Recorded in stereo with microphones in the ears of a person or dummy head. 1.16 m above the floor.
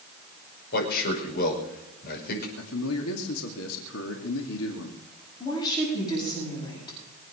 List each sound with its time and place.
0.7 s a man speaking: 50° left (ahead or behind), 5.5 m
2.6 s a man speaking: 75° left (ahead or behind), 2.5 m
5.4 s a woman speaking: 20° left (ahead or behind), 8 m